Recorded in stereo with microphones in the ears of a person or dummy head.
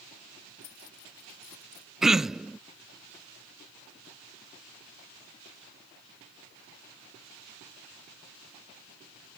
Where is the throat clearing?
5° right (ahead or behind).